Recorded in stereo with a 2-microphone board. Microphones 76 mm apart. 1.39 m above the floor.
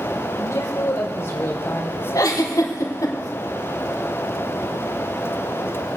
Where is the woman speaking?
45° left (ahead or behind), 4.5 m; by 2.0 s 25° left (ahead or behind), 3 m.